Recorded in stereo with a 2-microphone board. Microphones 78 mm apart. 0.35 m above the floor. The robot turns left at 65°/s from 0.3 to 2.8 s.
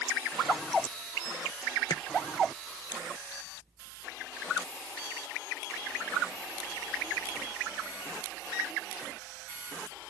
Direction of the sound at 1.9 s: 65° left (ahead or behind).